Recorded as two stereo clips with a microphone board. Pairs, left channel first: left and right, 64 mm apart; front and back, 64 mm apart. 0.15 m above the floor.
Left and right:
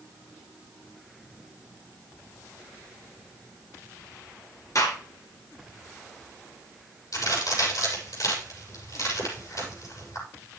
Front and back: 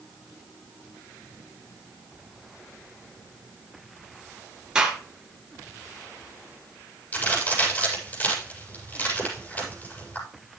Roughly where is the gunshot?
Left.